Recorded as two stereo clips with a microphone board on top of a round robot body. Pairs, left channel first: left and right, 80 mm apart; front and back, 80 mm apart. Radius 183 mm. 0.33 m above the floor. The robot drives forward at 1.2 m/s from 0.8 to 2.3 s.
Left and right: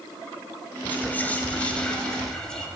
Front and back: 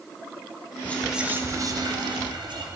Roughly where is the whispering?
Ahead left.